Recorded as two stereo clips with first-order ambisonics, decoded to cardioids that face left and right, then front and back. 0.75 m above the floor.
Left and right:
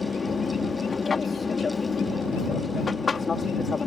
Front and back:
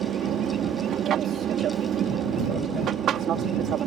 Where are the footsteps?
I don't hear footsteps.